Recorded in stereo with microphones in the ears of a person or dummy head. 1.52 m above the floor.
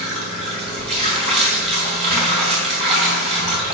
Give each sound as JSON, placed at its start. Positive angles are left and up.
{"t": 0.0, "sound": "running water", "side_deg": -35, "distance_m": 4.0}